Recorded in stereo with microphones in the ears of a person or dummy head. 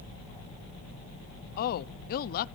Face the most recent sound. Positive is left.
turn(degrees=50)  # may be behind; listen again after turning